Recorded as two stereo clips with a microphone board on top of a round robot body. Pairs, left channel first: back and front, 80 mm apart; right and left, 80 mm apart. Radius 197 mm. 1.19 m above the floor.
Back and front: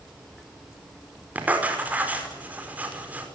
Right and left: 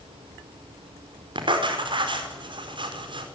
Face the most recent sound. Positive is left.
turn(degrees=70)